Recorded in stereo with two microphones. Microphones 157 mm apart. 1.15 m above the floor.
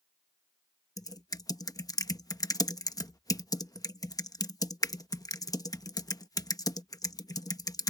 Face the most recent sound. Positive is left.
turn(degrees=25)  # may be behind; listen again after turning